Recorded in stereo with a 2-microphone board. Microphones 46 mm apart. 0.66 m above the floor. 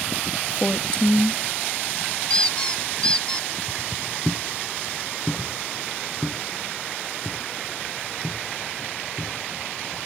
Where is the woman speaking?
25° left (ahead or behind), 1.0 m.